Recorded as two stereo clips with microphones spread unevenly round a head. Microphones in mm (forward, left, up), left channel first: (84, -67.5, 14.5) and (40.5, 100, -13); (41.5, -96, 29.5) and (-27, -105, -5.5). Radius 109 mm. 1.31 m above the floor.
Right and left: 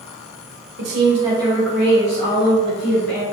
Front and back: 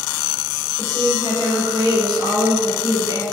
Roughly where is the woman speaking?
Behind left.